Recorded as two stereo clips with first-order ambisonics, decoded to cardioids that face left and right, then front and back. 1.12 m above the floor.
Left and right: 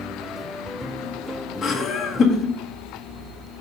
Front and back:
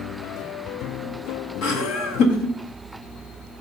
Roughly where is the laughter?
Ahead left.